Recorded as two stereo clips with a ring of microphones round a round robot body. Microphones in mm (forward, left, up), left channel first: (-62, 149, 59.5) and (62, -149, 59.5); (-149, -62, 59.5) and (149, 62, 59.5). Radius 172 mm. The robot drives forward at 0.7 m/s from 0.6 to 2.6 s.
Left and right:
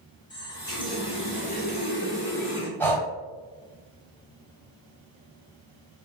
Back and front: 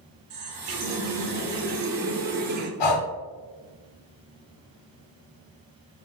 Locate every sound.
0.3 s a running tap: 35° left, 1.9 m; by 2.7 s 80° left, 1.2 m
2.8 s breathing: 165° right, 1.0 m